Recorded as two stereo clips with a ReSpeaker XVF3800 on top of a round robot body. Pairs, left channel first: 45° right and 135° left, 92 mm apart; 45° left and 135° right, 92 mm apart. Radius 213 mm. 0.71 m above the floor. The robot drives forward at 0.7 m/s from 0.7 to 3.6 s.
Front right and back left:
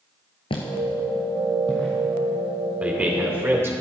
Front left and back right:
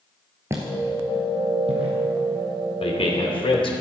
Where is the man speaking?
60° left, 3 m; by 3.7 s 70° left, 2.5 m.